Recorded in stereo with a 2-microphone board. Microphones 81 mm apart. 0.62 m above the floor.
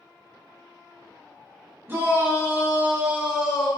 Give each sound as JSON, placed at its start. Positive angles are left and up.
{"t": 1.9, "sound": "a shout", "side_deg": -25, "distance_m": 1.0}